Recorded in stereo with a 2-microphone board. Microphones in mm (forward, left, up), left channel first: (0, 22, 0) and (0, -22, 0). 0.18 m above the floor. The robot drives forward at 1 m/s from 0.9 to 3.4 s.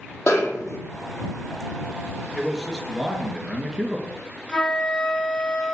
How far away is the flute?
About 1.9 m.